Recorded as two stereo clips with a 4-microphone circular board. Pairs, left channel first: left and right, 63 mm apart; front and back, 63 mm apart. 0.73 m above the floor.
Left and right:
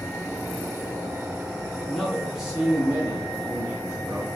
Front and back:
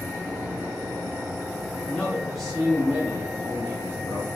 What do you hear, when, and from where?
1.9 s a man speaking: 25° left, 0.8 m; by 4.3 s 145° right, 1.4 m